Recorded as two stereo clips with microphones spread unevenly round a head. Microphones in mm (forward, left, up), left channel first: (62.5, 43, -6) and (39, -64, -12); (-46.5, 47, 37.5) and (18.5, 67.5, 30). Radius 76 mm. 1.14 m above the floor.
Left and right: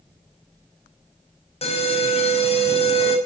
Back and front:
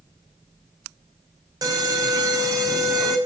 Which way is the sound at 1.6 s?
50° left.